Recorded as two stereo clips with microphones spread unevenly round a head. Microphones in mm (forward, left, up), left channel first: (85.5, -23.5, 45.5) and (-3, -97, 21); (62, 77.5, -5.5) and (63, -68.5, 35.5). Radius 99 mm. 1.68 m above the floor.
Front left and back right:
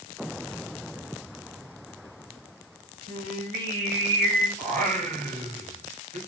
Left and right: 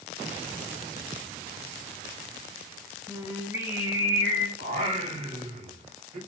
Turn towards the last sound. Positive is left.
turn(degrees=-135)